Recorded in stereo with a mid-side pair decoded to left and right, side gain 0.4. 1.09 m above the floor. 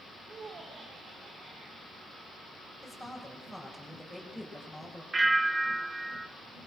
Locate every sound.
0.3 s laughter: 45° right, 3 m; by 2.7 s 75° right, 4 m
2.8 s a woman speaking: straight ahead, 6.5 m
5.1 s a bell: 30° right, 1.2 m